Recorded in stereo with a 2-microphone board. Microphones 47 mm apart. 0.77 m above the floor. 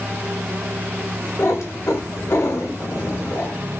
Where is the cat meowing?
75° left (ahead or behind), 0.9 m.